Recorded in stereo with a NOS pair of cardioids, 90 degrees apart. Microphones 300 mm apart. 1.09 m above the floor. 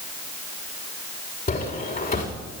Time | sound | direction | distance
1.5 | footsteps | 30° left | 6.5 m